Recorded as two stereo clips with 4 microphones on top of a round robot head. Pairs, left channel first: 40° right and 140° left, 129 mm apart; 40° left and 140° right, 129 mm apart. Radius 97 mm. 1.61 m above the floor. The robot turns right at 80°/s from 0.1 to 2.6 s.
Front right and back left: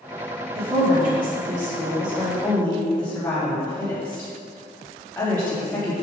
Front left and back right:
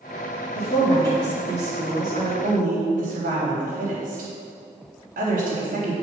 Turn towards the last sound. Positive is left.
turn(degrees=-120)